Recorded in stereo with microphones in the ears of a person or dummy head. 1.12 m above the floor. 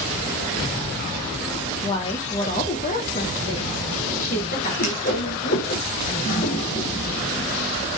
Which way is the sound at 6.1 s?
50° left (ahead or behind).